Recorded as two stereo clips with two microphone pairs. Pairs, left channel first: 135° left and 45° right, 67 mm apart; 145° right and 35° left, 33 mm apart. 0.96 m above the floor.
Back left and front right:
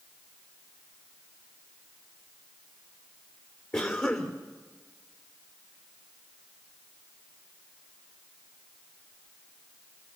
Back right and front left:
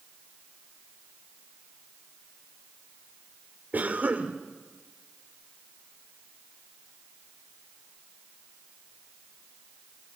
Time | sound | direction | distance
3.7 | a cough | 80° left | 2.5 m